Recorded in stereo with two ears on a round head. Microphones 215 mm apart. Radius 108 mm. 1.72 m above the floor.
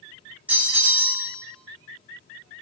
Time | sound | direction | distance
0.5 | a bell | 5° right (ahead or behind) | 0.6 m